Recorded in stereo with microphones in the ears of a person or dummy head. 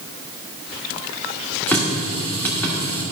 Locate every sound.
1.7 s a running tap: 10° left (ahead or behind), 1.6 m